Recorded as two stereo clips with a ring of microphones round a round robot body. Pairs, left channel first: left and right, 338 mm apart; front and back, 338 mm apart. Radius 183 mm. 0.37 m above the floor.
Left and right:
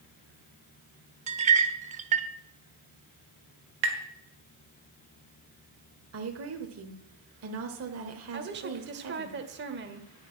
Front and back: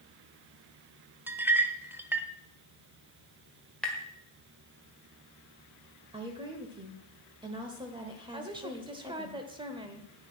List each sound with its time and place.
1.3 s a clink: 105° right, 0.6 m
3.8 s tapping: 85° right, 1.5 m
6.1 s a woman speaking: 110° right, 1.0 m
8.3 s a woman speaking: 115° right, 1.1 m